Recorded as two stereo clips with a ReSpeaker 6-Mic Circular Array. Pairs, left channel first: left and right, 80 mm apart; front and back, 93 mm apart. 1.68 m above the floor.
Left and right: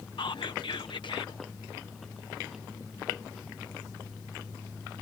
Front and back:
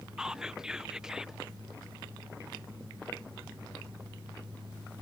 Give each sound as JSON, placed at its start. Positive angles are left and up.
{"t": 0.2, "sound": "whispering", "azimuth_deg": 100}